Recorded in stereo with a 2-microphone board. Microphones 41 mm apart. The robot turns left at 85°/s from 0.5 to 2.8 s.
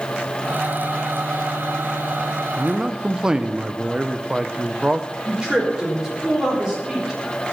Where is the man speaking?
25° right (ahead or behind), 0.7 m; by 5.1 s 15° right (ahead or behind), 0.7 m.